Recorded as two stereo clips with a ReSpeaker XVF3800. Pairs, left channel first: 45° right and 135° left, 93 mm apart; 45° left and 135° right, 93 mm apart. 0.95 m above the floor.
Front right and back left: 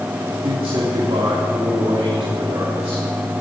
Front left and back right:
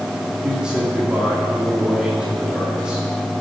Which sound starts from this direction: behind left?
A man speaking, at 0.4 s.